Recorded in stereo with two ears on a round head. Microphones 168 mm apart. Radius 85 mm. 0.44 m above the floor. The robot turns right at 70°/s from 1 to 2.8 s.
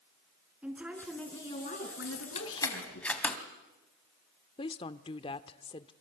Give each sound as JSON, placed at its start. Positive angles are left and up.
{"t": 0.6, "sound": "a woman speaking", "azimuth_deg": -5, "distance_m": 5.0}
{"t": 2.0, "sound": "keys jangling", "side_deg": 60, "distance_m": 2.5}
{"t": 4.6, "sound": "a woman speaking", "side_deg": 30, "distance_m": 0.8}